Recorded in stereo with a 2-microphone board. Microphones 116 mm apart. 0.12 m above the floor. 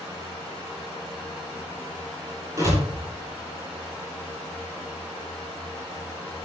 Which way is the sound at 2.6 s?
30° right (ahead or behind).